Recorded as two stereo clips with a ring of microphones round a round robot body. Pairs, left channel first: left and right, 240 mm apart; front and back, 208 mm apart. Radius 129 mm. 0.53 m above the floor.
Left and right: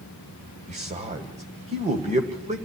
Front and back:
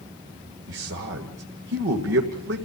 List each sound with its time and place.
0.7 s a man speaking: 150° right, 1.9 m